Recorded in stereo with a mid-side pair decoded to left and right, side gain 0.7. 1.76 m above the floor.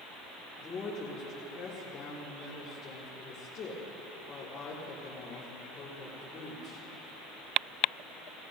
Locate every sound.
0.6 s a woman speaking: 25° left, 4 m